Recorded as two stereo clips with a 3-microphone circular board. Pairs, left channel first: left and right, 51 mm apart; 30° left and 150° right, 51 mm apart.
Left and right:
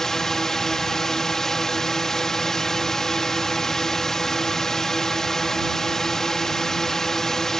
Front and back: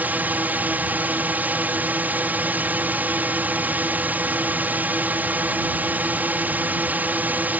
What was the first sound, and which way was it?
A drone, 170° left.